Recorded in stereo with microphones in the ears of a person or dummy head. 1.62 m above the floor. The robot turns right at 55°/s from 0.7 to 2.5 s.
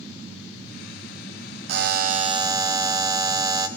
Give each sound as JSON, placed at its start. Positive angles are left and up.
{"t": 1.7, "sound": "a buzzer", "azimuth_deg": -65, "distance_m": 0.8}